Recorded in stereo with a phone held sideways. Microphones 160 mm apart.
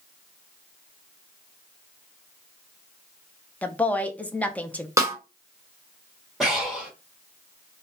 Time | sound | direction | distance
3.6 | a woman speaking | 10° left (ahead or behind) | 0.6 m
5.0 | a snare drum | 20° right (ahead or behind) | 1.0 m
6.4 | breathing | centre (ahead or behind) | 1.7 m